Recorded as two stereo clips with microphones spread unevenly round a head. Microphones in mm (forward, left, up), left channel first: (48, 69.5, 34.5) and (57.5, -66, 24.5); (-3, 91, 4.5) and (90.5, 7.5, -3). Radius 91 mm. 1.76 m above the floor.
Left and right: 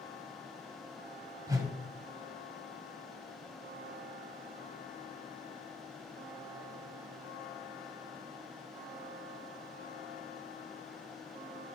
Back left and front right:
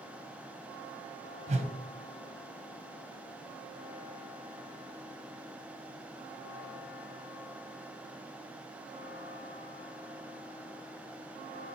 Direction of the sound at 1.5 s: 25° right.